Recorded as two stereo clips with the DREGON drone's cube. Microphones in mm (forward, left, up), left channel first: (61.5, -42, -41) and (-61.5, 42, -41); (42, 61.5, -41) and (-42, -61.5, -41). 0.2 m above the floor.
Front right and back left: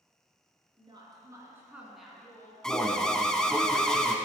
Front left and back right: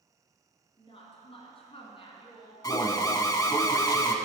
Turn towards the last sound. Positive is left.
turn(degrees=45)